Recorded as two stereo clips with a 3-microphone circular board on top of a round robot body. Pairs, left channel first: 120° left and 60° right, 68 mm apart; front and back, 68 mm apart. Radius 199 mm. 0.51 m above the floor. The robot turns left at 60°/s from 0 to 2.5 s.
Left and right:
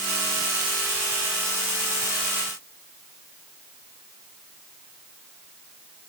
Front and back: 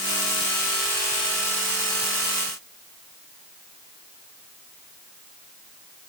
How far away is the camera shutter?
I don't hear a camera shutter.